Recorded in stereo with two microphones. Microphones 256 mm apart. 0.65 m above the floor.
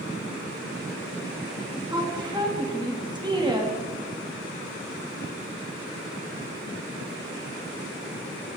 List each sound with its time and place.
1.9 s a woman speaking: 15° right (ahead or behind), 1.1 m